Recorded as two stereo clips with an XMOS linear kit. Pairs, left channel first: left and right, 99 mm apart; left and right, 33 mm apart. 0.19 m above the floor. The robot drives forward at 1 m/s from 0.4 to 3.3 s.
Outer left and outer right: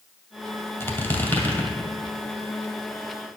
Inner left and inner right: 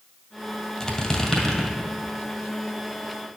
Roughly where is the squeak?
Left.